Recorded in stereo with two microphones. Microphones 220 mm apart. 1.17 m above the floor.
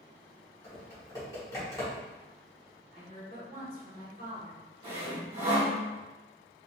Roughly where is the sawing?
Right.